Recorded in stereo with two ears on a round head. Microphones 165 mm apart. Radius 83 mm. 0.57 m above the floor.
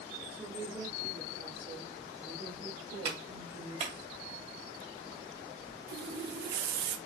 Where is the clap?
35° right (ahead or behind), 2 m.